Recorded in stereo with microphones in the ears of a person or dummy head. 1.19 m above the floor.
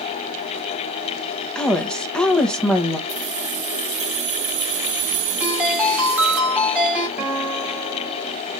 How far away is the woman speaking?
About 1.0 m.